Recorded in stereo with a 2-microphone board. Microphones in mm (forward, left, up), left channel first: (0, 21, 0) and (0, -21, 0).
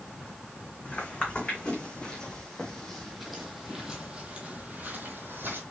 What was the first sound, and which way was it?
Footsteps, 25° left (ahead or behind).